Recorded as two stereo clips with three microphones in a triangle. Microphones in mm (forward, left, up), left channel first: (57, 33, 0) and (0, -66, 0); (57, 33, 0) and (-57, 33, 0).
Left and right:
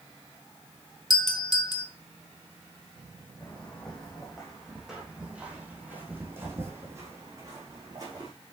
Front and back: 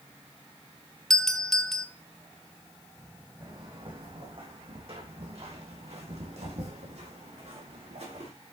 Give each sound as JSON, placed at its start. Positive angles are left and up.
{"t": 1.1, "sound": "a doorbell", "azimuth_deg": 85, "distance_m": 1.2}
{"t": 3.4, "sound": "footsteps", "azimuth_deg": 140, "distance_m": 4.0}